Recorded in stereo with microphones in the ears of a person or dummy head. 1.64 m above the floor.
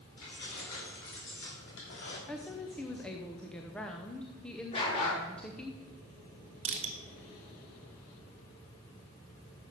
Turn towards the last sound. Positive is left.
turn(degrees=-30)  # may be behind; listen again after turning